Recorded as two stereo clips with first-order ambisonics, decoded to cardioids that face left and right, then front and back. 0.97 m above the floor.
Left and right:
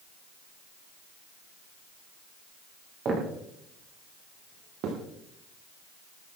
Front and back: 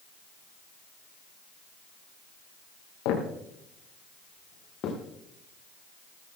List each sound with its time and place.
3.0 s footsteps: 25° right, 5.5 m; by 5.0 s 50° right, 4.5 m